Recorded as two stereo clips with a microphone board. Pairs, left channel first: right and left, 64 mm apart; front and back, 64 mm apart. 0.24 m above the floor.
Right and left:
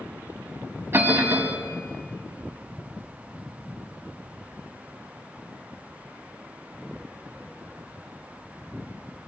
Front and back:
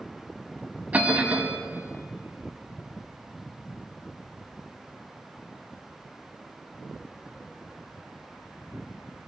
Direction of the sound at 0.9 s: 125° left.